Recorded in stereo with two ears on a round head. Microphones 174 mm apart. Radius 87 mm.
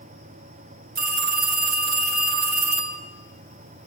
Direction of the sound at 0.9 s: 45° right (ahead or behind).